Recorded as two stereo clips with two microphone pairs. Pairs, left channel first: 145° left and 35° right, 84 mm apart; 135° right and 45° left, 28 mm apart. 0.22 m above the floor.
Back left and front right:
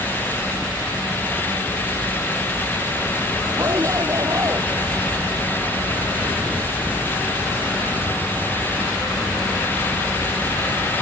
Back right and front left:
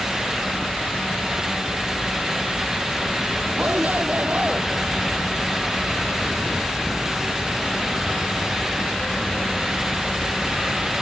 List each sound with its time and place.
3.6 s a shout: 15° left